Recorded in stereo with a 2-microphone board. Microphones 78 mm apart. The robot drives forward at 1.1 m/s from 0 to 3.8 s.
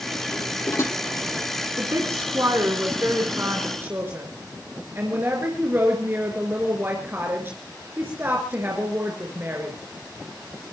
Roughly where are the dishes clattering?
Left.